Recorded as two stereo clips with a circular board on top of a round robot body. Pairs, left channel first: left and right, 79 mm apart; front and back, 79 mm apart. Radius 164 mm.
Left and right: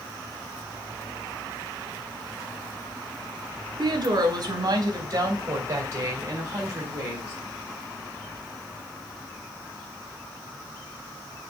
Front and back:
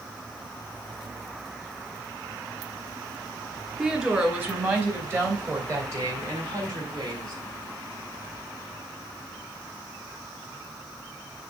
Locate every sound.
3.8 s a woman speaking: 105° right, 3 m; by 7.3 s 150° right, 3.5 m